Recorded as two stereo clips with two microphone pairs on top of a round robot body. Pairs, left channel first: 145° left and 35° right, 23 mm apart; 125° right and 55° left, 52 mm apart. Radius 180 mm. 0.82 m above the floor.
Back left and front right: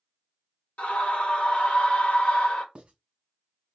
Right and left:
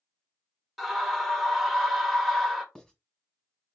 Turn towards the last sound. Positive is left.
turn(degrees=-45)